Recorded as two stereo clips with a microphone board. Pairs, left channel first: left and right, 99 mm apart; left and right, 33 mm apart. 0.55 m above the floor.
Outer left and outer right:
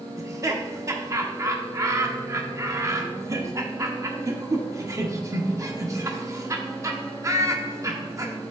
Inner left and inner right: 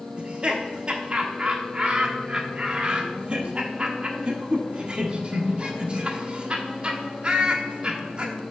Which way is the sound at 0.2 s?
35° right (ahead or behind).